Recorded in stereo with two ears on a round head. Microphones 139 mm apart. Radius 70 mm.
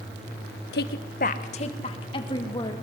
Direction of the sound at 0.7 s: 75° left (ahead or behind).